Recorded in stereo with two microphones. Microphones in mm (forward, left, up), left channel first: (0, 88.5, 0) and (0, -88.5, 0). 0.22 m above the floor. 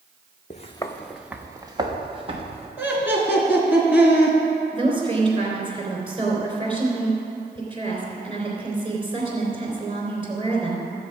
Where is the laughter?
10° right (ahead or behind), 3 m.